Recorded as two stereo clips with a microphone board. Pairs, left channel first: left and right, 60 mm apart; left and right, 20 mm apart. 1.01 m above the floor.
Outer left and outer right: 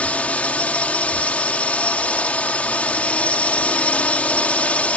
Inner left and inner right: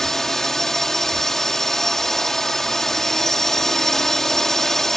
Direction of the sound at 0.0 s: 25° left (ahead or behind).